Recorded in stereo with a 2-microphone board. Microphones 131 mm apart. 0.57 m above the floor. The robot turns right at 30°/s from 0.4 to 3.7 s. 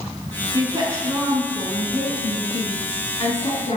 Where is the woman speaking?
35° right, 5.5 m; by 3.8 s 60° left, 5.5 m.